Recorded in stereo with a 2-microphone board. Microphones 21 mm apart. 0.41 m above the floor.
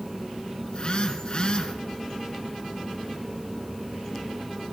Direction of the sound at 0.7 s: 45° left (ahead or behind).